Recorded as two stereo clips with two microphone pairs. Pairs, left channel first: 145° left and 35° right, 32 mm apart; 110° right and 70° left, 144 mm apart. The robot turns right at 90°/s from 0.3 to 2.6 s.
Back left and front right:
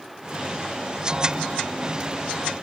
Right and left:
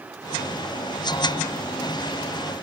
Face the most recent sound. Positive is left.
No sound to turn to.